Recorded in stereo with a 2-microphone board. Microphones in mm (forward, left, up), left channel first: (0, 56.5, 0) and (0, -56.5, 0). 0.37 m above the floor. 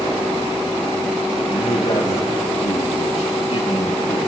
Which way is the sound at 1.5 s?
70° left (ahead or behind).